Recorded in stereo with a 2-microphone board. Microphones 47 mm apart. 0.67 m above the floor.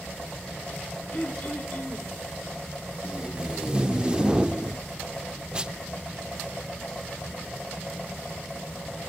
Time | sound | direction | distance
1.1 | throat clearing | 40° left (ahead or behind) | 2.5 m
3.0 | tape being pulled | 20° right (ahead or behind) | 0.6 m